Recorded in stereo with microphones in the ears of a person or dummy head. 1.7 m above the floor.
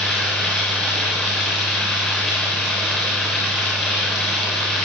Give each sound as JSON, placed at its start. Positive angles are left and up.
{"t": 0.0, "sound": "running water", "side_deg": 5, "distance_m": 6.5}